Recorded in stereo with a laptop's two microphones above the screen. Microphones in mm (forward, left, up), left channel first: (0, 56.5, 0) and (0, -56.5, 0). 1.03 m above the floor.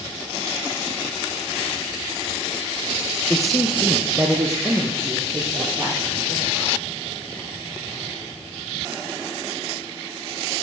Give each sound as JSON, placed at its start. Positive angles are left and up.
{"t": 3.3, "sound": "a man speaking", "side_deg": 5, "distance_m": 0.8}